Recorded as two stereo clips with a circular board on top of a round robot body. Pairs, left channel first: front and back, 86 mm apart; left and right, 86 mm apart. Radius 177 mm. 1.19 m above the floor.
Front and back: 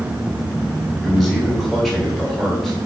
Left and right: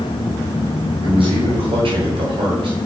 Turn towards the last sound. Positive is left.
turn(degrees=-85)